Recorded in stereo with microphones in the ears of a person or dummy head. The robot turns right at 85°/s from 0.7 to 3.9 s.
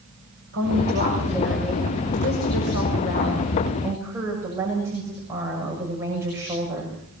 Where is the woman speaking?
75° right, 7 m; by 7.0 s 165° right, 7 m.